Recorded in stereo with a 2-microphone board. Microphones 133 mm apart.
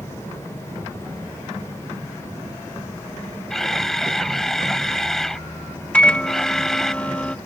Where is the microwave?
10° left (ahead or behind).